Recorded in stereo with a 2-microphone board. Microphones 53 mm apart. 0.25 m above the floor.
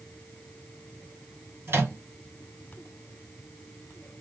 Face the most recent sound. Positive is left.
turn(degrees=-50)  # may be behind; listen again after turning